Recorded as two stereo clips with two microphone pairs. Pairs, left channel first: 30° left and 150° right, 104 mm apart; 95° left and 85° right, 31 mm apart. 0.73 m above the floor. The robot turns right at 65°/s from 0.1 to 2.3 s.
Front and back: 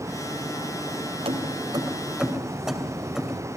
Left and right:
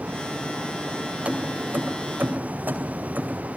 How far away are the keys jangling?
About 2.5 m.